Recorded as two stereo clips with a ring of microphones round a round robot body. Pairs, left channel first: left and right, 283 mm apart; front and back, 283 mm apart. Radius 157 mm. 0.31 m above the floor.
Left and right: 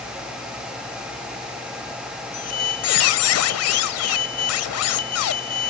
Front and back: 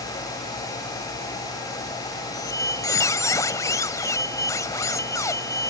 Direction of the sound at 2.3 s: 75° left.